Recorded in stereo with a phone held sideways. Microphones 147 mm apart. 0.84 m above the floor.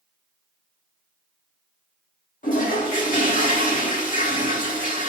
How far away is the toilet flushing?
About 1.8 m.